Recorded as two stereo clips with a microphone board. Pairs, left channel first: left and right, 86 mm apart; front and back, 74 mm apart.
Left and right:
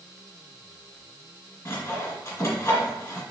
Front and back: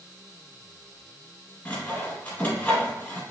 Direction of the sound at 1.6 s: 65° left.